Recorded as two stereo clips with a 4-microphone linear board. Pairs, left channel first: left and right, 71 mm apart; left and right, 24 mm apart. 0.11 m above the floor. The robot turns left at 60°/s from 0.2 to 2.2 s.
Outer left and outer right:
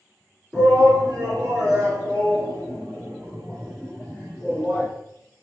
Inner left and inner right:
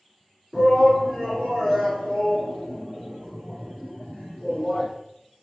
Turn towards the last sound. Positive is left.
turn(degrees=15)  # may be behind; listen again after turning